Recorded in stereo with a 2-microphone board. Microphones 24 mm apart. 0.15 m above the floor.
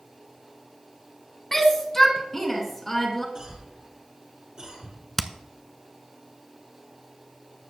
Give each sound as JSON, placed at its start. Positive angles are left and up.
{"t": 1.5, "sound": "a shout", "side_deg": 15, "distance_m": 1.6}
{"t": 3.4, "sound": "a cough", "side_deg": -35, "distance_m": 4.5}
{"t": 5.2, "sound": "hammering", "side_deg": 10, "distance_m": 0.6}